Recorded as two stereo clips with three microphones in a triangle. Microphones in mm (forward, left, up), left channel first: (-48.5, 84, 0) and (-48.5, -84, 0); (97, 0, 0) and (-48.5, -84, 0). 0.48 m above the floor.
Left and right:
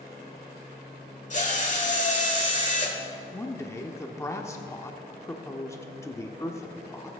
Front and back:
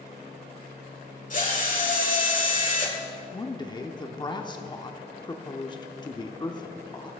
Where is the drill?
60° left, 1.5 m.